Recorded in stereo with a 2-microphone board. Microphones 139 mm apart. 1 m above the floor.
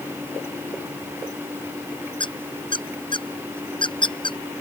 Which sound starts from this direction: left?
A squeak, at 2.2 s.